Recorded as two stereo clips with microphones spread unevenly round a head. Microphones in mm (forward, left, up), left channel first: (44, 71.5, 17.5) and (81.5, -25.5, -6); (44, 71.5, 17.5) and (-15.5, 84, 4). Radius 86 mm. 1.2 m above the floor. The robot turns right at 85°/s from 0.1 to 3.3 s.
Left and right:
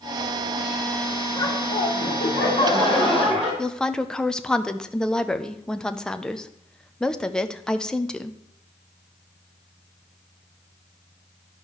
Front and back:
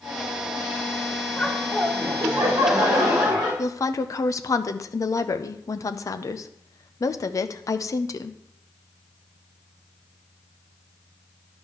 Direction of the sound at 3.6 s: 20° left.